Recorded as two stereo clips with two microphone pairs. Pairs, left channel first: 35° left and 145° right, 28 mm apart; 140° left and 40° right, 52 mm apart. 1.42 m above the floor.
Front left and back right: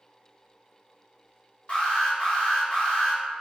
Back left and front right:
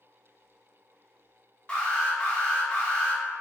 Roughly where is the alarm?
Left.